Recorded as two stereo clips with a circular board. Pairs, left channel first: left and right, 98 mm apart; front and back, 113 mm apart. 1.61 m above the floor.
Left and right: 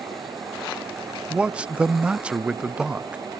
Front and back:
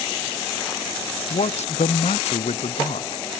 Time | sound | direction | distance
1.3 | a man speaking | 10° right | ?